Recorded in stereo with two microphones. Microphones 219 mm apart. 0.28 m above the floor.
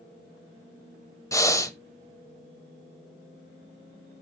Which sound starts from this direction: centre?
Breathing, at 1.3 s.